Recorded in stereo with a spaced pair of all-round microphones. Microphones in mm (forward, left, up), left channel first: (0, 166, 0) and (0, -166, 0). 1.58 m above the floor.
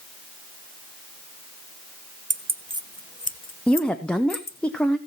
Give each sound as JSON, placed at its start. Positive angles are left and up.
{"t": 2.3, "sound": "keys jangling", "side_deg": -35, "distance_m": 0.8}
{"t": 3.7, "sound": "a woman speaking", "side_deg": 5, "distance_m": 0.8}